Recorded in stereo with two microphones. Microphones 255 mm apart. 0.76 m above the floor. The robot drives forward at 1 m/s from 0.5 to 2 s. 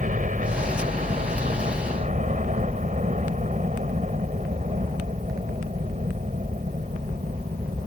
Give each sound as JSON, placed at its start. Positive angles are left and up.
{"t": 0.0, "sound": "a helicopter", "side_deg": -30}